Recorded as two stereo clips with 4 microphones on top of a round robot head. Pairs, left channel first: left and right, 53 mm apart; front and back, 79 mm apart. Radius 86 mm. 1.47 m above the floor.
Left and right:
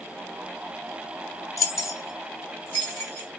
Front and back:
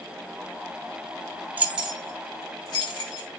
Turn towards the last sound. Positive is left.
turn(degrees=0)